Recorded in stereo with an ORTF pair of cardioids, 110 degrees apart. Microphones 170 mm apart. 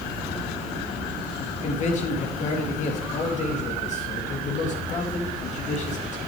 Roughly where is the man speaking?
Ahead left.